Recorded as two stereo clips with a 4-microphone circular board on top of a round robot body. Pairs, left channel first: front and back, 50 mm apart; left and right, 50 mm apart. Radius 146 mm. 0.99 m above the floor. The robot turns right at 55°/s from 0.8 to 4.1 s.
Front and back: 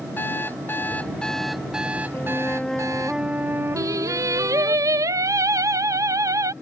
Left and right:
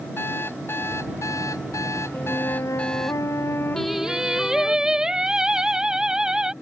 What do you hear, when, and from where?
0.2 s an alarm clock: 50° left; by 3.1 s 175° left
2.1 s a flute: 45° left; by 4.8 s 155° left
3.8 s singing: 175° left; by 6.5 s 165° right